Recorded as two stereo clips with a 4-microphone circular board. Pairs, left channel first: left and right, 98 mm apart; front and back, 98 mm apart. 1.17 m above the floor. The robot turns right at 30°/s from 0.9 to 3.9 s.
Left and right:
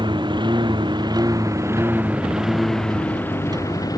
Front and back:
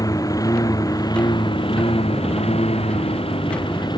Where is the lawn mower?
55° right; by 4.0 s 40° left.